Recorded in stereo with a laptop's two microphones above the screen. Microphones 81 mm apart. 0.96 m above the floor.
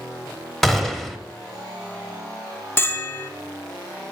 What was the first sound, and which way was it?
A gunshot, 5° left (ahead or behind).